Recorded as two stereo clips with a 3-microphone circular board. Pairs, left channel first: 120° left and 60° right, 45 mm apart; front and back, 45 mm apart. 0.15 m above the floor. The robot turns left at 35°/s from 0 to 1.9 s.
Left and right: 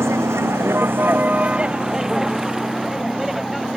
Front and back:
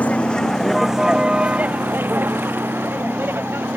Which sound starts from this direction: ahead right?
A vehicle, at 0.0 s.